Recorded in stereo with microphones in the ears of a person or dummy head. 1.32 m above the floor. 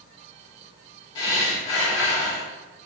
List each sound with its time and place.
1.1 s breathing: 25° left (ahead or behind), 1.5 m